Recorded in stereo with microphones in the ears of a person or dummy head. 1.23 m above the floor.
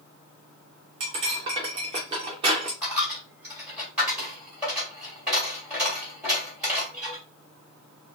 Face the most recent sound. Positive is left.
turn(degrees=-5)  # may be behind; listen again after turning